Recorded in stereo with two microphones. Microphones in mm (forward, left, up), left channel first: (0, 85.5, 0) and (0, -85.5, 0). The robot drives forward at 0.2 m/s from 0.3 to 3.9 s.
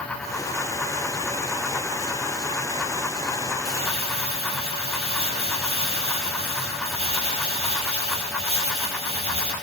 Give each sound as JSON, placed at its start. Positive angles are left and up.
{"t": 3.6, "sound": "crumpling", "side_deg": 35, "distance_m": 8.0}